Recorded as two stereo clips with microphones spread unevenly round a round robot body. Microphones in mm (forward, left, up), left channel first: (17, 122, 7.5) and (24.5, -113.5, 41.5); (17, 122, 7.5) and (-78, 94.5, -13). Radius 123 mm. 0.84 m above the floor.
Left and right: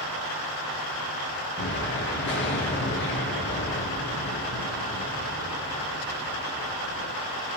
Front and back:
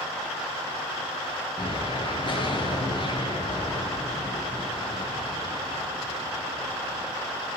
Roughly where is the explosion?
Ahead left.